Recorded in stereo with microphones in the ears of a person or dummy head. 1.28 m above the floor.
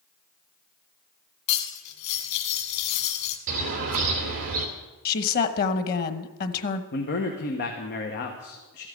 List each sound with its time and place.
1.5 s cutlery clinking: 55° left (ahead or behind), 2 m
3.5 s a bird: 45° right (ahead or behind), 2.5 m
5.0 s a woman speaking: 50° left (ahead or behind), 1.1 m
6.9 s a man speaking: 50° left (ahead or behind), 1.3 m